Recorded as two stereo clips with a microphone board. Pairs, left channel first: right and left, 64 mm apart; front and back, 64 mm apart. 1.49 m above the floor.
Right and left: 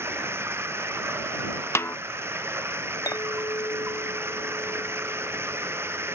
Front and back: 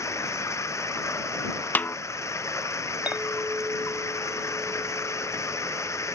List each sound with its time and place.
0.0 s running water: 40° left
1.8 s a snare drum: 55° right
3.1 s a clink: 115° right